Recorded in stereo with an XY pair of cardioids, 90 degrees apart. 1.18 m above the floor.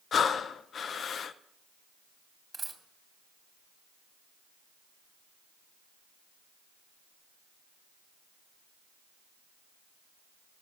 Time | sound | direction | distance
0.1 | breathing | 60° left | 0.5 m
2.5 | a dropped coin | 25° right | 2.5 m